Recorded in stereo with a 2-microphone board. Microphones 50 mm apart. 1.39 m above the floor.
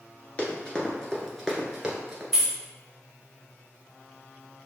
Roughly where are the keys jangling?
Centre.